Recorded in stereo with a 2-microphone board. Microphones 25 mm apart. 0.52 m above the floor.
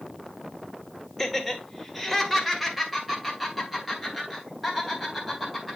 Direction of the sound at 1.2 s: 5° left (ahead or behind).